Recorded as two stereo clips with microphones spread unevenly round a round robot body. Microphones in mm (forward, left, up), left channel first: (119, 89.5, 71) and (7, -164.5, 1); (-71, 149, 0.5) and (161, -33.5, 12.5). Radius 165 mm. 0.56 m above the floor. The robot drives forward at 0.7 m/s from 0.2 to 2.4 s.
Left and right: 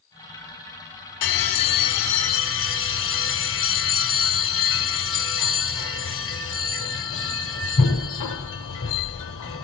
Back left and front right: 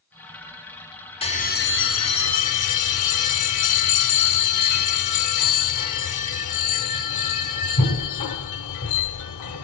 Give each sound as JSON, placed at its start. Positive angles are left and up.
{"t": 1.2, "sound": "a bell", "azimuth_deg": 70, "distance_m": 1.0}